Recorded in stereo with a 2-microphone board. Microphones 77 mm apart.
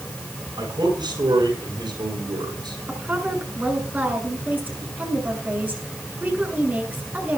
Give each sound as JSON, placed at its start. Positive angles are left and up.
{"t": 0.6, "sound": "a man speaking", "side_deg": -80, "distance_m": 8.5}
{"t": 2.9, "sound": "a woman speaking", "side_deg": -25, "distance_m": 7.5}